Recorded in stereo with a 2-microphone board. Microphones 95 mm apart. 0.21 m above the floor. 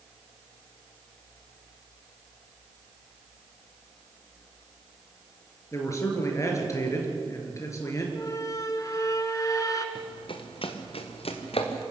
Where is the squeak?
35° left (ahead or behind), 1.8 m.